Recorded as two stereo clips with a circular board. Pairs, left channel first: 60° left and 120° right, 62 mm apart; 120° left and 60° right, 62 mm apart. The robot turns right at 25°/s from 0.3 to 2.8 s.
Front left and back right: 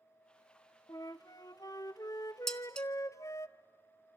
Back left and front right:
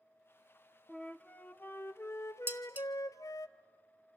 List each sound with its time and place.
0.9 s a flute: 45° left, 0.6 m; by 3.5 s 95° left, 0.6 m
2.5 s dishes clattering: 20° right, 1.0 m; by 2.9 s 10° right, 1.0 m